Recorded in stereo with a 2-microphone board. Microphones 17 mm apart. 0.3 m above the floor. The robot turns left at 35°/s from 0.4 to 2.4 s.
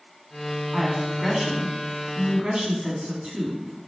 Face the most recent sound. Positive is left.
turn(degrees=-70)